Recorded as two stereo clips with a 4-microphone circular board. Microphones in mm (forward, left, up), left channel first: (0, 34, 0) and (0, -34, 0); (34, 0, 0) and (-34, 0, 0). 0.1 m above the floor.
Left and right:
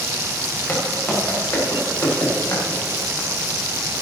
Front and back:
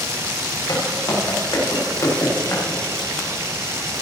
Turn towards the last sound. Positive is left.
turn(degrees=50)